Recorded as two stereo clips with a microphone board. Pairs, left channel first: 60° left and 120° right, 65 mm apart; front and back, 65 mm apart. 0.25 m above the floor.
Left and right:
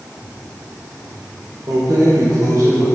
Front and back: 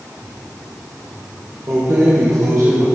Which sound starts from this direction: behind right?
Keys jangling, at 1.7 s.